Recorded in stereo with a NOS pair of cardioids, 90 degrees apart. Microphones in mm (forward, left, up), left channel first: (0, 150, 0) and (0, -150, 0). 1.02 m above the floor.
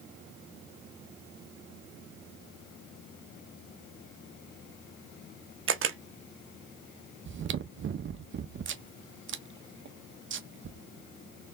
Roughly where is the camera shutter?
Ahead right.